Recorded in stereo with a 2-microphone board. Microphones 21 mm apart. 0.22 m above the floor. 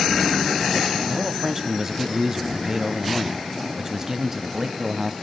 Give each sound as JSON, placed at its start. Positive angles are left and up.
{"t": 1.1, "sound": "a man speaking", "side_deg": -20, "distance_m": 1.2}